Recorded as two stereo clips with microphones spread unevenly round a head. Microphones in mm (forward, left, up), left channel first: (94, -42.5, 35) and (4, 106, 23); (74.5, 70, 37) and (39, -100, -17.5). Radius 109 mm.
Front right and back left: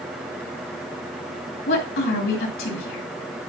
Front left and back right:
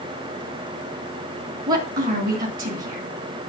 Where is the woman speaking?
65° right, 2 m.